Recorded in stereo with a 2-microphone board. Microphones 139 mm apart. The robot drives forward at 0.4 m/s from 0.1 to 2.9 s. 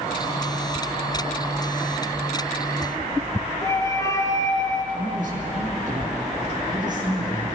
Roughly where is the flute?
Left.